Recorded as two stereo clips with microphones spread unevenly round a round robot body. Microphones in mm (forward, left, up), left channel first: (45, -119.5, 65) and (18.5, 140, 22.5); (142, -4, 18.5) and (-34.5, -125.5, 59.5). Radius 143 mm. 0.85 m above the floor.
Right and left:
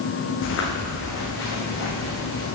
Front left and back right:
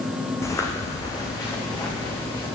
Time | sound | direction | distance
0.4 | footsteps | 45° right | 3.5 m